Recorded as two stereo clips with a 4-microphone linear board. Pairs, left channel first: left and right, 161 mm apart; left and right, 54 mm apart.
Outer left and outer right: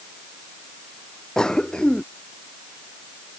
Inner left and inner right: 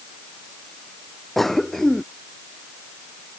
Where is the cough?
5° left (ahead or behind).